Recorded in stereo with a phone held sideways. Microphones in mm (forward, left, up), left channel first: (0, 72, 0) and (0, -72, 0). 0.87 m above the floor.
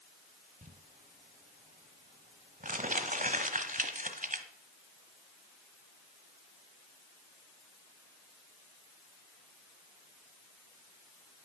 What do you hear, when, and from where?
0.6 s crumpling: 70° right (ahead or behind), 1.3 m